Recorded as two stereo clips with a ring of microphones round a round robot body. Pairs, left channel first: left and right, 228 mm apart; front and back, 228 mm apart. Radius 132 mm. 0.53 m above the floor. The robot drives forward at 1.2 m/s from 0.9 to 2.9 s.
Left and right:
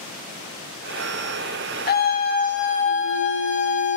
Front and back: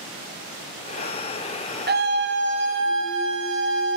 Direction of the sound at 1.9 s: 135° left.